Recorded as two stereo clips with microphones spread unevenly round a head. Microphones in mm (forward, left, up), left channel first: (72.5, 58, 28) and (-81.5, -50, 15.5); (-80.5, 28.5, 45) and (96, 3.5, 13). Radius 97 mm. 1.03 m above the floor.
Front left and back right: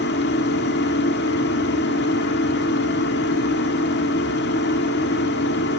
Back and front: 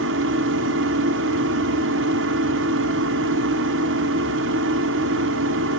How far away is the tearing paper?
No tearing paper in this recording.